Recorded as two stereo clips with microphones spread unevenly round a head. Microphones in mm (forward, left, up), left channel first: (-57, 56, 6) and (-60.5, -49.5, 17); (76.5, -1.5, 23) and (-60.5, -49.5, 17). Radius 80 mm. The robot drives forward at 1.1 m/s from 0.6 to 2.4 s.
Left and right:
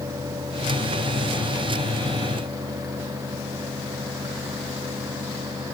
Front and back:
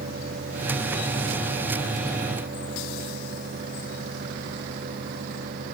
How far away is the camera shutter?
I don't hear a camera shutter.